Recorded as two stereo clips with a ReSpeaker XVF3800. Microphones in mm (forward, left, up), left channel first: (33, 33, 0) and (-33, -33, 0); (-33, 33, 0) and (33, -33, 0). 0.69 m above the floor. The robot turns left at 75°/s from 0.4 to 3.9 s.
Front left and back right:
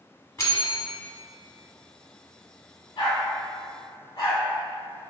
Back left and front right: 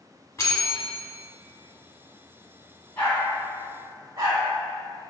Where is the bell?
90° left, 0.8 m; by 0.9 s 55° left, 0.8 m.